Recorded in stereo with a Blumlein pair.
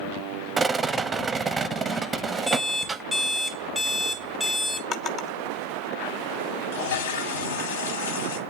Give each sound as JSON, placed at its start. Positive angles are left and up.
{"t": 0.6, "sound": "a rattle", "azimuth_deg": -15, "distance_m": 0.7}
{"t": 2.5, "sound": "an alarm clock", "azimuth_deg": 10, "distance_m": 1.1}
{"t": 4.9, "sound": "a drawer", "azimuth_deg": 30, "distance_m": 1.0}
{"t": 6.7, "sound": "a toilet flushing", "azimuth_deg": 60, "distance_m": 1.0}